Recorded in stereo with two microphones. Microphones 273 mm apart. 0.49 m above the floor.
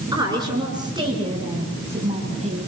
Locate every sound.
0.1 s a woman speaking: 10° right (ahead or behind), 8.5 m; by 2.7 s 25° right (ahead or behind), 5 m